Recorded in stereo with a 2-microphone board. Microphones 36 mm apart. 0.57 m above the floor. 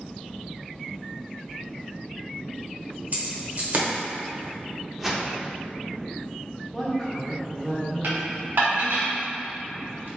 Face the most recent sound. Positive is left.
turn(degrees=-60)  # may be behind; listen again after turning